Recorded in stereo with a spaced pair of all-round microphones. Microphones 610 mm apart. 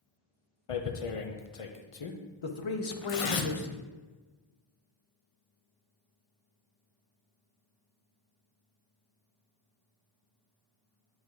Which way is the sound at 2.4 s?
50° left (ahead or behind).